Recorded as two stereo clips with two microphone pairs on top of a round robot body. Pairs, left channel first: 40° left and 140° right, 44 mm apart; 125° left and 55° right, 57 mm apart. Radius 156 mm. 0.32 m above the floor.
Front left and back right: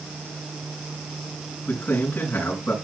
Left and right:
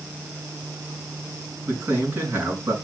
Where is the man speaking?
5° right, 4 m.